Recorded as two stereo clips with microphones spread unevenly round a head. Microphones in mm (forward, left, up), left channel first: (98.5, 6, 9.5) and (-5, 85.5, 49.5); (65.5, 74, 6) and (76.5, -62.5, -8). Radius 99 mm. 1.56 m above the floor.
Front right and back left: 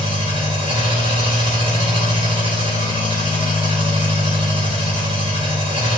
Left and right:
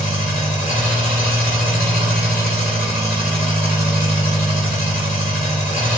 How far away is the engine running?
About 3 m.